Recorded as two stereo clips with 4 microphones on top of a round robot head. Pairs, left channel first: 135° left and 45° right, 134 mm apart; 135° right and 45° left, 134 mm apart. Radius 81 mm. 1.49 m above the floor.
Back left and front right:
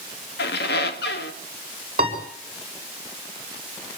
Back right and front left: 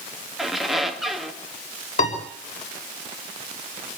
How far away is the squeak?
About 1.9 m.